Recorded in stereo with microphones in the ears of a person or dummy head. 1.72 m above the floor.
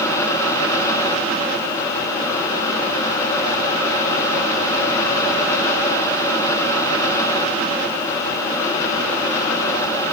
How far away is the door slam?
I don't hear a door slam.